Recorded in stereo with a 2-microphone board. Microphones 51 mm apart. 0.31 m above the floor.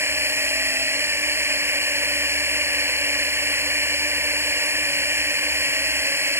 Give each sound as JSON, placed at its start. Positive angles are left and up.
{"t": 0.0, "sound": "a drone", "side_deg": -50}